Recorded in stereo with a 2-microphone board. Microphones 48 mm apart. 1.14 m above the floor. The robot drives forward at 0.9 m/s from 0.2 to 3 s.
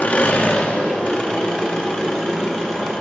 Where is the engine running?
35° left (ahead or behind), 1.9 m; by 3.0 s 15° left (ahead or behind), 4.5 m.